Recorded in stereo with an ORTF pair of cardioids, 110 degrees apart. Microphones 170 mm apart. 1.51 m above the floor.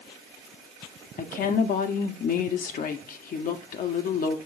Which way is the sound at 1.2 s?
55° left.